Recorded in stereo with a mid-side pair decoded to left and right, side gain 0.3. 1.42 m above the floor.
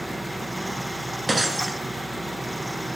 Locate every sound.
0.0 s a fan: 10° right, 2.5 m
1.3 s breaking glass: 25° right, 7 m